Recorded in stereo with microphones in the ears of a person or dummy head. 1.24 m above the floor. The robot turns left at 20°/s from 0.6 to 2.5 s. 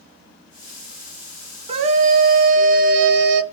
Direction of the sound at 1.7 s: 35° right (ahead or behind).